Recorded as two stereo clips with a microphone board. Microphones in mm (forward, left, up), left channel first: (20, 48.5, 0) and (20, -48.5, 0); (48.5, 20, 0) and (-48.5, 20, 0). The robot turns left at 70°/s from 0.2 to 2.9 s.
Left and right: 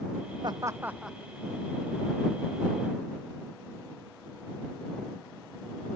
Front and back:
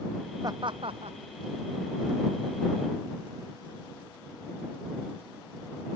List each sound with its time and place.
0.4 s laughter: 130° right; by 1.2 s 175° left